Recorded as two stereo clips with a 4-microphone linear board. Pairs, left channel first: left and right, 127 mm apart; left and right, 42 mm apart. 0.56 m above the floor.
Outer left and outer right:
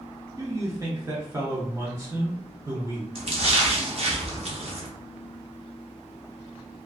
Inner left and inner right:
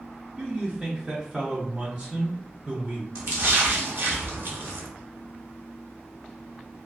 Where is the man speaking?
25° right (ahead or behind), 0.6 m.